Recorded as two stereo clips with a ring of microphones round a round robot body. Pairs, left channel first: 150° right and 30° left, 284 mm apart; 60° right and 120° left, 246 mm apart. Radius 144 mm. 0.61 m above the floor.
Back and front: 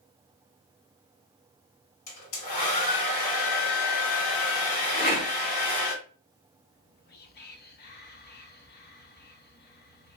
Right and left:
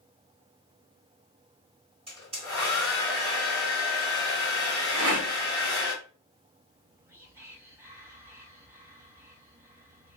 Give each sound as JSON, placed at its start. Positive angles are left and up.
{"t": 2.1, "sound": "a hair dryer", "azimuth_deg": -170, "distance_m": 1.7}
{"t": 4.9, "sound": "a rattle", "azimuth_deg": 150, "distance_m": 1.7}
{"t": 6.7, "sound": "whispering", "azimuth_deg": -165, "distance_m": 0.7}